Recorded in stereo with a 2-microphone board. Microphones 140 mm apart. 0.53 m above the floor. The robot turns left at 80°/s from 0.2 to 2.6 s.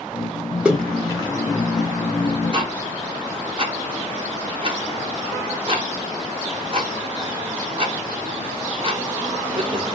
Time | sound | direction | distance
0.7 | a splash | 10° right (ahead or behind) | 1.4 m
2.5 | ticking | 35° right (ahead or behind) | 1.0 m